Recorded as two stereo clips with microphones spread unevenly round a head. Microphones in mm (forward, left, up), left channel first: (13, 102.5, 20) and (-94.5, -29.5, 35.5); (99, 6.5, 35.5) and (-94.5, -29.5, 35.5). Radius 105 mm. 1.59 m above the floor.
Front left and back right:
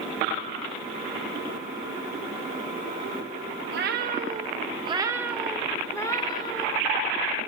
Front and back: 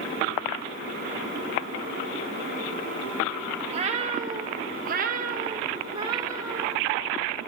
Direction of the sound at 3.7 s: 110° right.